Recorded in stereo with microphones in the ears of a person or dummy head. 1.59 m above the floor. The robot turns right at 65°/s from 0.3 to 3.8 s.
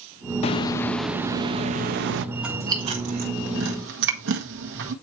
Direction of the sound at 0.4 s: 140° left.